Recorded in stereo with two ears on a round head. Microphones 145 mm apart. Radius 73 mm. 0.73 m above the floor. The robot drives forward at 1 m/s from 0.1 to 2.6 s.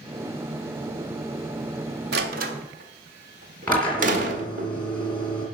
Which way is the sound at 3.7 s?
10° left (ahead or behind).